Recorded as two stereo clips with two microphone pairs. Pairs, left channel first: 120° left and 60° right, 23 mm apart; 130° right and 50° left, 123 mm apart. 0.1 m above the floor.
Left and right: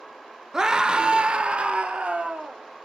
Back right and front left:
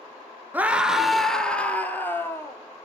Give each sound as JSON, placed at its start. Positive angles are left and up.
{"t": 0.5, "sound": "a scream", "azimuth_deg": -20, "distance_m": 1.4}